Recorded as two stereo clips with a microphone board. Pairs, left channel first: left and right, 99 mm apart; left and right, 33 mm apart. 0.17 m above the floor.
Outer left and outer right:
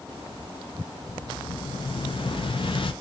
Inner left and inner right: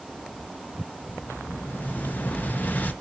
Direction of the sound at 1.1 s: 65° left (ahead or behind).